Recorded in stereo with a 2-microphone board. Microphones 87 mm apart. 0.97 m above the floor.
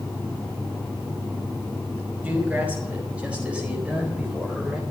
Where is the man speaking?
15° right (ahead or behind), 5 m; by 4.8 s 10° right (ahead or behind), 3.5 m.